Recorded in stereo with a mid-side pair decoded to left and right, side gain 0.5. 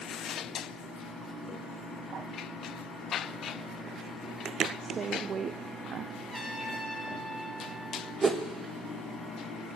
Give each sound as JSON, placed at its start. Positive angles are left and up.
{"t": 4.8, "sound": "a woman speaking", "azimuth_deg": -50, "distance_m": 0.5}
{"t": 6.3, "sound": "a trumpet", "azimuth_deg": -25, "distance_m": 2.5}
{"t": 8.2, "sound": "a whoosh", "azimuth_deg": -30, "distance_m": 0.8}